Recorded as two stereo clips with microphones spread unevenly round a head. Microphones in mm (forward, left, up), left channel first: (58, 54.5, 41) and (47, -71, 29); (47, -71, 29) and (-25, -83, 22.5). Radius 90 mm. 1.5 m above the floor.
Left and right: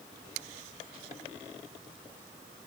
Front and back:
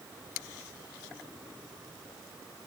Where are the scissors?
I don't hear scissors.